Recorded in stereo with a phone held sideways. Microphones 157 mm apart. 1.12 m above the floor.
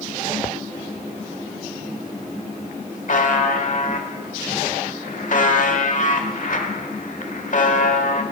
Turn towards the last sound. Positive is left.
turn(degrees=60)  # may be behind; listen again after turning